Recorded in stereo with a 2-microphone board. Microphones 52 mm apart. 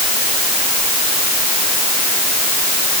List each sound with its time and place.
Only background noise.